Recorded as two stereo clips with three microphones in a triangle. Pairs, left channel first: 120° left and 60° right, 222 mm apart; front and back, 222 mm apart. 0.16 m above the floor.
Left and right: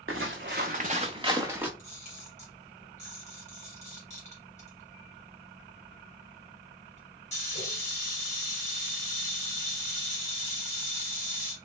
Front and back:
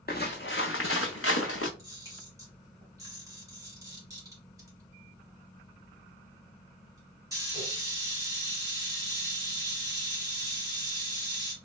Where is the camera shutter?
120° left, 1.9 m.